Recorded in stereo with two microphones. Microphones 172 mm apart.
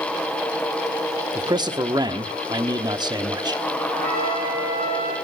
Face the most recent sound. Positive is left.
turn(degrees=-60)  # may be behind; listen again after turning